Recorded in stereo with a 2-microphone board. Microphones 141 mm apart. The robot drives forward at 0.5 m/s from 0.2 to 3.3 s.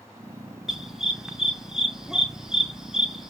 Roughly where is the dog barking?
Centre.